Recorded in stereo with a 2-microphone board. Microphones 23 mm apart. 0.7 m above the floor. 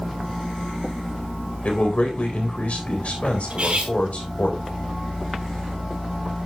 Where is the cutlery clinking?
55° right (ahead or behind), 3.5 m.